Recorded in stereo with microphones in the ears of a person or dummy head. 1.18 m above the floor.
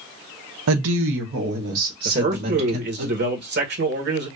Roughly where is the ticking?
No ticking in this recording.